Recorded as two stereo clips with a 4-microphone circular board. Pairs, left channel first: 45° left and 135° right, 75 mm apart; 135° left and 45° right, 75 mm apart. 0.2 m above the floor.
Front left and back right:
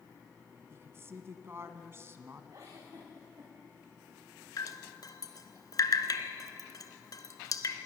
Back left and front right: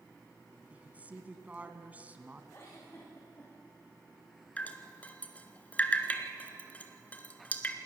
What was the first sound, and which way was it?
A woman speaking, 105° right.